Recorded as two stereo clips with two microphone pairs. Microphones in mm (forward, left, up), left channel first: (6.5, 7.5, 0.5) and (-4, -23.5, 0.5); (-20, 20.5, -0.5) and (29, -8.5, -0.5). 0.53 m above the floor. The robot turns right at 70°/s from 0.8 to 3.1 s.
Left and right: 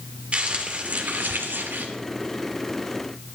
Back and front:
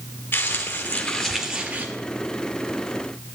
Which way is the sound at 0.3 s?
165° right.